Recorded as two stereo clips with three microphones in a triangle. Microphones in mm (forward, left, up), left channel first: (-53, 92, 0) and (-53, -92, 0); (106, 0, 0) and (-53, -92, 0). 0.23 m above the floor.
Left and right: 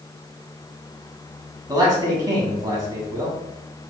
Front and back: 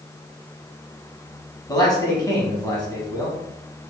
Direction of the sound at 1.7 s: 30° right.